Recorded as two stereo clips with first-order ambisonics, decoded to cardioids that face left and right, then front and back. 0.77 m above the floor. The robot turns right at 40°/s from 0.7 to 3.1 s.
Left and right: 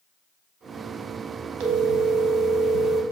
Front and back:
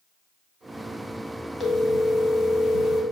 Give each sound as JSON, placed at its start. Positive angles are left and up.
{"t": 1.6, "sound": "a phone ringing", "azimuth_deg": -85, "distance_m": 0.6}